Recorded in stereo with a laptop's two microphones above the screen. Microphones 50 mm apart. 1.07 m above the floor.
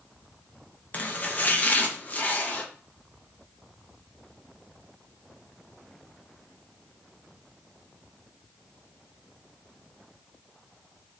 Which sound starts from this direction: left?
Chopping, at 0.9 s.